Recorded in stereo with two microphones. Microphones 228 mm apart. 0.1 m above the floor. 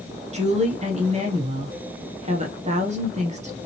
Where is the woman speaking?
30° right (ahead or behind), 1.2 m.